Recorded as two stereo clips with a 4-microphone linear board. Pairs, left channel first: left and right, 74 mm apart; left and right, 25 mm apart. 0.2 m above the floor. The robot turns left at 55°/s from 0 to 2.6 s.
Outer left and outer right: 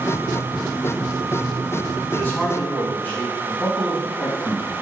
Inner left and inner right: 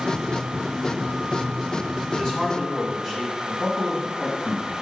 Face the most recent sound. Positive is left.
turn(degrees=15)  # may be behind; listen again after turning